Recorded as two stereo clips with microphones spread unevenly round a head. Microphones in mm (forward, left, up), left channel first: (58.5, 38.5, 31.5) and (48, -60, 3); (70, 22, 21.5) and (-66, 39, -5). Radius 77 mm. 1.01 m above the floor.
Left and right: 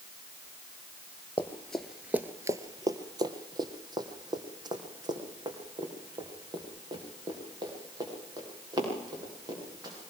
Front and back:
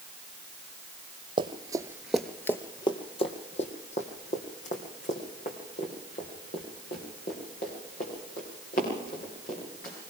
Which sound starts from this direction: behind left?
Running footsteps, at 1.4 s.